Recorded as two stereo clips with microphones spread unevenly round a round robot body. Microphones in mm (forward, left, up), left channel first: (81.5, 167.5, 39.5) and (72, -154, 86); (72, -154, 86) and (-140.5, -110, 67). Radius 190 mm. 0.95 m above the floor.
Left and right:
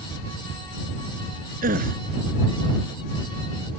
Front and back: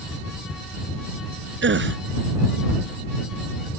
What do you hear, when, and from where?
1.6 s a gasp: 160° right